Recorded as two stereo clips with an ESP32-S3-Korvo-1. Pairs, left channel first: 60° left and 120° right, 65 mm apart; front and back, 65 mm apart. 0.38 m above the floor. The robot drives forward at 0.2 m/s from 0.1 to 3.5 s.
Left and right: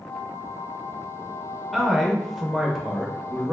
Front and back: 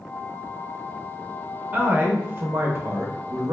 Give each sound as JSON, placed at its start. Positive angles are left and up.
{"t": 1.7, "sound": "a man speaking", "azimuth_deg": 155, "distance_m": 0.9}